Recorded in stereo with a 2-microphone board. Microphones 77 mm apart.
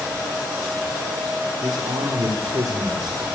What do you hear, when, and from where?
1.6 s a man speaking: 70° right (ahead or behind), 3.5 m